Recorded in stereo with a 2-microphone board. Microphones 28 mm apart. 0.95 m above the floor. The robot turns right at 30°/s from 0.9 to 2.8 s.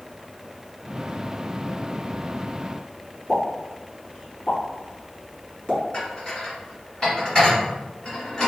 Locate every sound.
3.3 s a pop: 15° left (ahead or behind), 1.7 m
5.9 s dishes clattering: 20° left (ahead or behind), 1.9 m